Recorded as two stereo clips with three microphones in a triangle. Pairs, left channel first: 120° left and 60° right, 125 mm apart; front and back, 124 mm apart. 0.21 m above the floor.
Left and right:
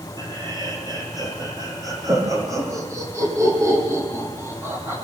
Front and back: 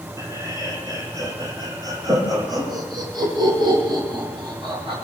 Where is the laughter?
115° right, 9 m; by 5.0 s 130° right, 10.5 m.